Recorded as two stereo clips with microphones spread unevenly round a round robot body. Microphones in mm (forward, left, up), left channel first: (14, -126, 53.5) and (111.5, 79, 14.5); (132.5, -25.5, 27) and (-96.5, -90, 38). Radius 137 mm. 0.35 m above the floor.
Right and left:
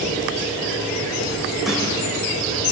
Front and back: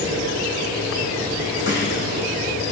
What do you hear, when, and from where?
1.7 s a snare drum: 25° right, 5.5 m